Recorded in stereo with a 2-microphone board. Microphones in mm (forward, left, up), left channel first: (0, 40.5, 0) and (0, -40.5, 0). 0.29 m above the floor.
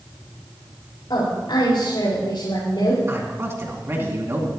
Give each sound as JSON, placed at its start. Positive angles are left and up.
{"t": 1.1, "sound": "a woman speaking", "side_deg": 75, "distance_m": 5.5}
{"t": 3.1, "sound": "a man speaking", "side_deg": -35, "distance_m": 2.5}